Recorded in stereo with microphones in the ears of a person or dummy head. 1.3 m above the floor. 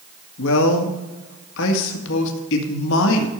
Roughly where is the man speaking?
Left.